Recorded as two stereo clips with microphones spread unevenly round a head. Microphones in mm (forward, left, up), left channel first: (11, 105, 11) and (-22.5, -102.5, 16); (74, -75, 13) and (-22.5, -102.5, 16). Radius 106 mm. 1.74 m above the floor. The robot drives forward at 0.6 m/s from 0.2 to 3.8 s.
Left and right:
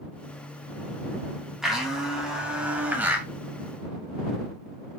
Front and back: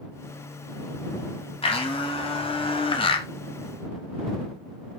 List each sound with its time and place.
1.6 s a blender: 10° right, 2.5 m; by 3.3 s 15° right, 1.6 m